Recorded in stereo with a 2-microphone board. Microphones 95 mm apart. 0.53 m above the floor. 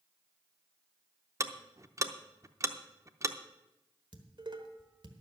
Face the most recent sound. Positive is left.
turn(degrees=-55)  # may be behind; listen again after turning